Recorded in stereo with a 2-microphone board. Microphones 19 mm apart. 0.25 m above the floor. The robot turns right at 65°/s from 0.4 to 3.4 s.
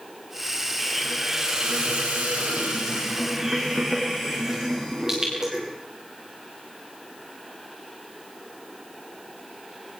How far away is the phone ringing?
No phone ringing in this recording.